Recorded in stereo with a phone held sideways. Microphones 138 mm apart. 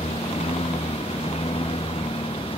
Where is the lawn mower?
45° left (ahead or behind); by 2.6 s 40° left (ahead or behind).